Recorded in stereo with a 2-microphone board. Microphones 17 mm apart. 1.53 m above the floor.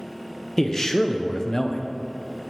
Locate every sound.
0.6 s a man speaking: 30° left (ahead or behind), 0.6 m